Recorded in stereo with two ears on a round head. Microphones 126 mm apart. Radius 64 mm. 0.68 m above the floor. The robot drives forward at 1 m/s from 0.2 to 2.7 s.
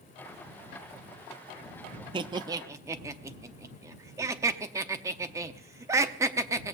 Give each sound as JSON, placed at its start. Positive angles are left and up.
{"t": 2.1, "sound": "laughter", "side_deg": -35, "distance_m": 0.5}